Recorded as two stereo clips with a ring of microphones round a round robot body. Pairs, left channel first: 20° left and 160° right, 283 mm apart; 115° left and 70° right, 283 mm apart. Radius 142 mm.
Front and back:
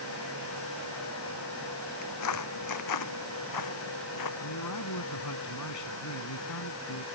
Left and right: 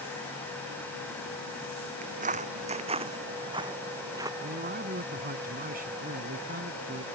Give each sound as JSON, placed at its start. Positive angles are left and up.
{"t": 2.0, "sound": "footsteps", "azimuth_deg": -5}
{"t": 4.4, "sound": "a man speaking", "azimuth_deg": -5}